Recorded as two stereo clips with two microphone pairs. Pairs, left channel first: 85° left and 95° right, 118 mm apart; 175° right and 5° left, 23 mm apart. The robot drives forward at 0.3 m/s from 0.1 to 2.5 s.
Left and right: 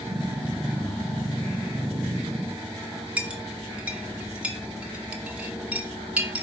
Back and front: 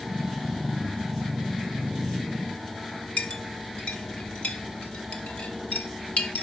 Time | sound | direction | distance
3.2 | a clink | 175° right | 0.9 m